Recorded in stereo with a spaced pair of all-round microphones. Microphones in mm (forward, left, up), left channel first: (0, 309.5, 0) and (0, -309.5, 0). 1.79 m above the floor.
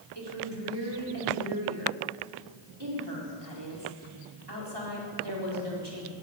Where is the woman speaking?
40° right (ahead or behind), 4.5 m.